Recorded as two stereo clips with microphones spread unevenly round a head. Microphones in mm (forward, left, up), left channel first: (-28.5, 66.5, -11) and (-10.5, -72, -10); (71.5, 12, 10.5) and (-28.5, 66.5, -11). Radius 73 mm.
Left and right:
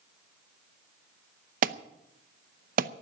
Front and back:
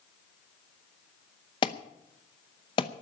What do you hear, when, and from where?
1.6 s an alarm: 90° right, 0.7 m